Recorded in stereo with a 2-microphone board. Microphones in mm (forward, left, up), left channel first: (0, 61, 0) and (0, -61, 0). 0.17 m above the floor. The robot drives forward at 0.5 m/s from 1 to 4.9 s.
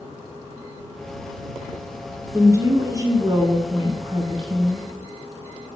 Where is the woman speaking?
25° right (ahead or behind), 1.8 m; by 4.9 s 40° right (ahead or behind), 1.2 m.